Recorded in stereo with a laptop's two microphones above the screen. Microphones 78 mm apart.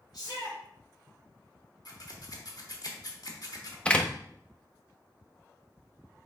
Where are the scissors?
55° left (ahead or behind), 1.0 m.